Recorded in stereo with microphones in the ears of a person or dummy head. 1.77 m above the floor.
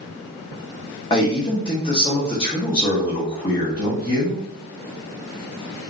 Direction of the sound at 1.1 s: 20° left (ahead or behind).